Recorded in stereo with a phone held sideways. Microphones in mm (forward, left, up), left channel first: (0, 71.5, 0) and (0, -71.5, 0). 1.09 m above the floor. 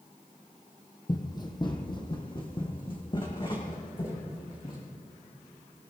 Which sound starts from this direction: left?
Running footsteps, at 1.1 s.